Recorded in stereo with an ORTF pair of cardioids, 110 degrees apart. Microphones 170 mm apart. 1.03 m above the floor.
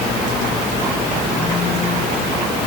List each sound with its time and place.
Only background noise.